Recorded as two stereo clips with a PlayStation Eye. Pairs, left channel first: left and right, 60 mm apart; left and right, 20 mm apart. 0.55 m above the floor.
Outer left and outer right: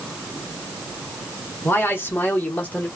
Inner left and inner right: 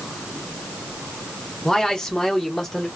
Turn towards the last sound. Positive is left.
turn(degrees=20)  # may be behind; listen again after turning